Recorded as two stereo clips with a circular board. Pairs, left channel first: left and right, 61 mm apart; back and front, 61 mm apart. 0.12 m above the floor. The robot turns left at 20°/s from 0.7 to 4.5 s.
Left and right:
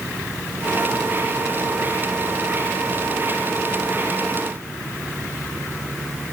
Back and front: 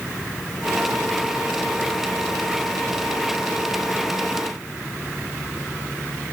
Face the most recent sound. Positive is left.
No sound to turn to.